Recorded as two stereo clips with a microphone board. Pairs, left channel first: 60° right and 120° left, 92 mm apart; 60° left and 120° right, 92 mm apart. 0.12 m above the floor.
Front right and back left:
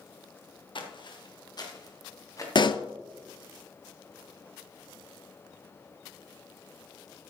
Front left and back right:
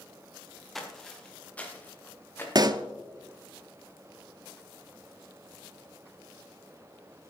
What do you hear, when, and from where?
0.8 s footsteps: 30° right, 2 m; by 2.5 s 10° right, 3 m
2.5 s a pop: 85° right, 0.5 m